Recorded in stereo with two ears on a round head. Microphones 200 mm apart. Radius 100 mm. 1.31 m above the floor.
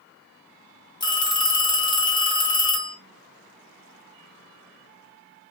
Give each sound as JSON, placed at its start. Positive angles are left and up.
{"t": 1.0, "sound": "a phone ringing", "side_deg": 20, "distance_m": 0.7}